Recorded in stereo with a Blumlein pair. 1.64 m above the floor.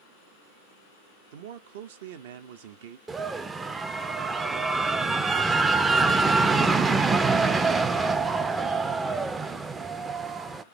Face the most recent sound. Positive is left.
turn(degrees=-15)